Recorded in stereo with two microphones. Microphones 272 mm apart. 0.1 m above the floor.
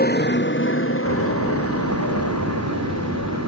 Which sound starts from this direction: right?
A door slam, at 1.1 s.